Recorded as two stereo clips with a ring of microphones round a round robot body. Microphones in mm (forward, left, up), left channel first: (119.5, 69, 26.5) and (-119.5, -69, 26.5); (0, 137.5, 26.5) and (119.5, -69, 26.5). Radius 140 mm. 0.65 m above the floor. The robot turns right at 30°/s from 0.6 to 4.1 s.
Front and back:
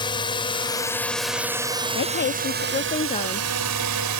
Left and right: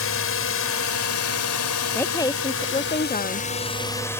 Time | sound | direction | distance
0.0 | a drone | 100° left | ?
1.9 | a woman speaking | 45° left | ?